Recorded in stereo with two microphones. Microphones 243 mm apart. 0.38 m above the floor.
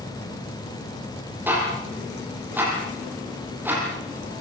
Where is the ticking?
10° right (ahead or behind), 9 m.